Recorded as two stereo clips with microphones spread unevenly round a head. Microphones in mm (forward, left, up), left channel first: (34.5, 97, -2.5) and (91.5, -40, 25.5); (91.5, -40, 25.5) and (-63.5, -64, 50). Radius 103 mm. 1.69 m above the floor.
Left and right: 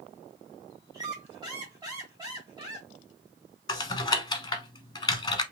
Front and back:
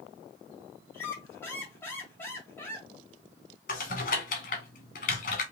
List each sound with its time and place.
0.9 s a squeak: 75° right, 1.7 m
3.7 s typing on a keyboard: 50° left, 0.9 m